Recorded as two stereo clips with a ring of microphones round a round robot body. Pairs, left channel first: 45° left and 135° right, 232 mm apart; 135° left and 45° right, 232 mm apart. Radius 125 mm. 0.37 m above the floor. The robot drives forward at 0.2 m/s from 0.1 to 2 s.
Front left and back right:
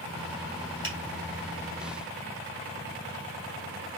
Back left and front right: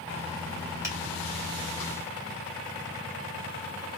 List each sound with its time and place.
0.8 s a finger snap: 120° right, 2 m